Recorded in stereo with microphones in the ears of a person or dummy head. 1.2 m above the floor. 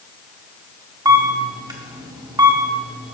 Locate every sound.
1.1 s a camera shutter: 25° right (ahead or behind), 0.9 m